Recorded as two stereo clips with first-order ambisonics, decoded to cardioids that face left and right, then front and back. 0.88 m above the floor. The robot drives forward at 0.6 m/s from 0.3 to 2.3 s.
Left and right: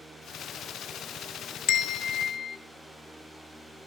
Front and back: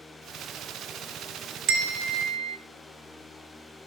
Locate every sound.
1.7 s a bell: 135° left, 0.6 m; by 2.6 s 150° left, 0.9 m